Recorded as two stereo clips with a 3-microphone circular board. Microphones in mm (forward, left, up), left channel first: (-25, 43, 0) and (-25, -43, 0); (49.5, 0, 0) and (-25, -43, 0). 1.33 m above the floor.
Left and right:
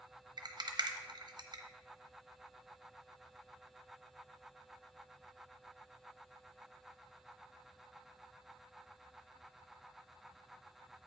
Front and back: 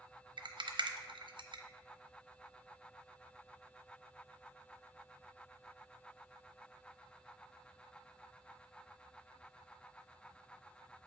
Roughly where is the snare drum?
I don't hear a snare drum.